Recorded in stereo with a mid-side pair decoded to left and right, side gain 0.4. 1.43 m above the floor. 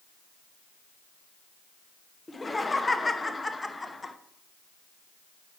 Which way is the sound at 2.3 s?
20° left.